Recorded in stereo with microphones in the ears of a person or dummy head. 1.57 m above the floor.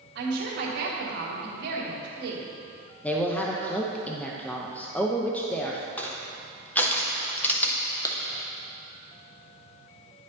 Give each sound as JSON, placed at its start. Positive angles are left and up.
{"t": 0.1, "sound": "a woman speaking", "side_deg": -65, "distance_m": 1.4}
{"t": 3.0, "sound": "a man speaking", "side_deg": 5, "distance_m": 0.5}
{"t": 6.0, "sound": "crushing", "side_deg": 10, "distance_m": 0.9}
{"t": 8.1, "sound": "a clap", "side_deg": 20, "distance_m": 0.8}